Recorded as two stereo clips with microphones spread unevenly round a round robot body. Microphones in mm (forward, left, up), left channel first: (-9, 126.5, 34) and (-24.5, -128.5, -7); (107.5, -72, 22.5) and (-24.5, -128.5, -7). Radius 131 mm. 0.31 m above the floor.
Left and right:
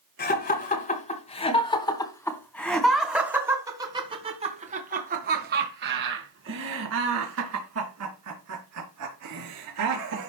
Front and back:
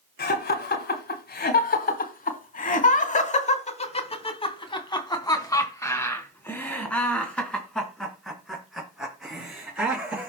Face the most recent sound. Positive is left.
turn(degrees=-75)